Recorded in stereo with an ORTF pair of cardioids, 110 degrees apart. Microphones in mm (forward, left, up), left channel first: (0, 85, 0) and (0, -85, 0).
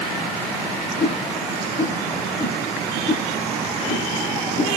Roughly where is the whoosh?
Ahead left.